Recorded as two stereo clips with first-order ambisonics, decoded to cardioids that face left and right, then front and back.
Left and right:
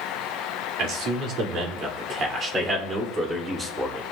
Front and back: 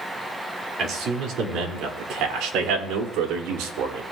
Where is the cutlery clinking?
I don't hear cutlery clinking.